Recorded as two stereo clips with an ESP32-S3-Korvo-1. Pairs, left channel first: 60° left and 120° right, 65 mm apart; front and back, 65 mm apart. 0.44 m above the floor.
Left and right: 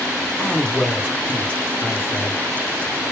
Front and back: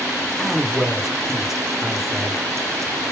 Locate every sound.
0.4 s a man speaking: 105° left, 1.4 m